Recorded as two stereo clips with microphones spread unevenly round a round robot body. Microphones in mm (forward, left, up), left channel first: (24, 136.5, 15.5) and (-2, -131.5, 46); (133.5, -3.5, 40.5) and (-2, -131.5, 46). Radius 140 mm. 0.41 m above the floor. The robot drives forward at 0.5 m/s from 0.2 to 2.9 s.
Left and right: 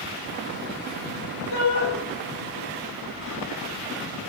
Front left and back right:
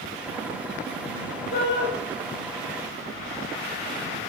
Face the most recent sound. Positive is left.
turn(degrees=105)